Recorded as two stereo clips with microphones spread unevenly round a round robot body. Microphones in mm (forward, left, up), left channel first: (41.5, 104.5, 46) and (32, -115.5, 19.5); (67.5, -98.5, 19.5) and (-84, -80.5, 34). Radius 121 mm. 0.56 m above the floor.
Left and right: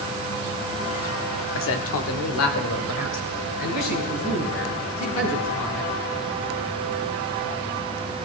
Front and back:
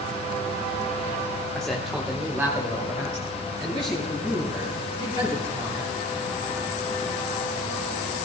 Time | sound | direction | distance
1.6 | a man speaking | 75° left | 1.0 m